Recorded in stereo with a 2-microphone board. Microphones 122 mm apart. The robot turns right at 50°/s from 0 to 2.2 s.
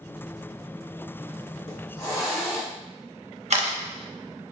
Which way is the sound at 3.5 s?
65° right (ahead or behind).